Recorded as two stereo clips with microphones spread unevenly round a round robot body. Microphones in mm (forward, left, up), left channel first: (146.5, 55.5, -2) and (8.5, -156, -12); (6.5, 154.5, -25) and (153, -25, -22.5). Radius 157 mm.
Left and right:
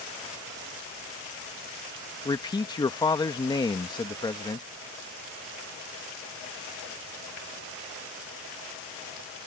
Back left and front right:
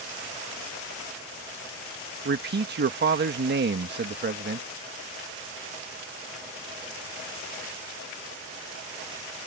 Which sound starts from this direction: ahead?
A man speaking, at 2.2 s.